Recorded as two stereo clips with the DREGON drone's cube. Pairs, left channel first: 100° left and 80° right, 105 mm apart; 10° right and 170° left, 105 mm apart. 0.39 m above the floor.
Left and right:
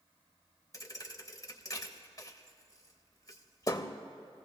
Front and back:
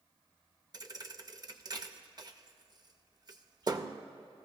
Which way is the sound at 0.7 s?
140° left.